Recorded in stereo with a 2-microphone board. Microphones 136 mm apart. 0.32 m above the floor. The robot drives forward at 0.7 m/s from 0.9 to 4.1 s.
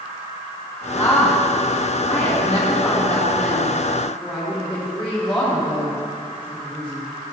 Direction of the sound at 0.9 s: 20° left (ahead or behind).